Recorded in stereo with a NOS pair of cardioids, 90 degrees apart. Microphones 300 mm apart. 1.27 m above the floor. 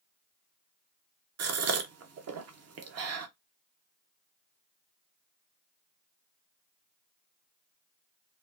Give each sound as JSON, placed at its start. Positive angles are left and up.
{"t": 1.4, "sound": "a gasp", "azimuth_deg": -55, "distance_m": 0.7}